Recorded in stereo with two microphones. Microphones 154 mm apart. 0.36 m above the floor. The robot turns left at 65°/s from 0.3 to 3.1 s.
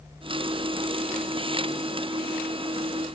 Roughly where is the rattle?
No rattle in this recording.